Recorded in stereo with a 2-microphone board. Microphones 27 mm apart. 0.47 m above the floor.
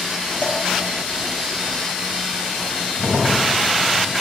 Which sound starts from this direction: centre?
A crack, at 3.0 s.